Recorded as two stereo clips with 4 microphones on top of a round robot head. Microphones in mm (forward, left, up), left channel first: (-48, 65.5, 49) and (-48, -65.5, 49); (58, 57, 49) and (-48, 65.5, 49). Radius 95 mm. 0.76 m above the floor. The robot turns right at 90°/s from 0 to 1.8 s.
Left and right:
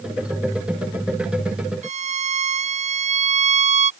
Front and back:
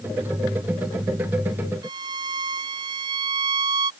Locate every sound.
1.8 s a violin: 120° right